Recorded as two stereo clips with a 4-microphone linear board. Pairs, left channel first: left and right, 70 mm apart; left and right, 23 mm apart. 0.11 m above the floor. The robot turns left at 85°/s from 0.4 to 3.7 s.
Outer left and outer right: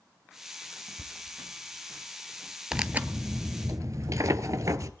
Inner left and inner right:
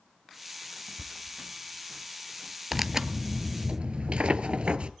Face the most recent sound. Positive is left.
turn(degrees=-95)